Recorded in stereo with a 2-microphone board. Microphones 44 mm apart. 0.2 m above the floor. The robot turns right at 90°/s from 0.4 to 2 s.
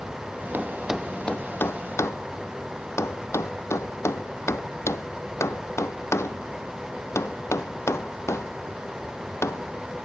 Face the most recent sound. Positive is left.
turn(degrees=85)